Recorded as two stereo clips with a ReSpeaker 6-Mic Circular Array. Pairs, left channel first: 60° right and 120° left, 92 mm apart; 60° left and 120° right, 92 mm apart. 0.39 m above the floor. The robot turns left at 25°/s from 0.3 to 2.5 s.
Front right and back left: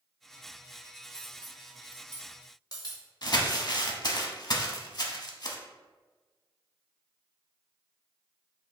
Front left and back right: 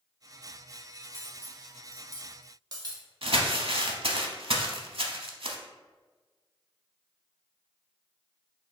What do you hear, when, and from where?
1.1 s cutlery clinking: 60° right, 0.9 m; by 3.1 s 90° right, 0.9 m
3.2 s crumpling: 100° right, 0.6 m